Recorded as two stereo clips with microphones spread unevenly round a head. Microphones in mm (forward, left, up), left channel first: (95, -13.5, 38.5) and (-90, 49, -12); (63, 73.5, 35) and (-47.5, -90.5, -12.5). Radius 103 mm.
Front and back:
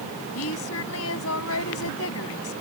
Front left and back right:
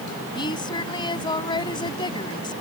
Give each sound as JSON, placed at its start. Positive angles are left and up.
{"t": 0.3, "sound": "a woman speaking", "azimuth_deg": -10}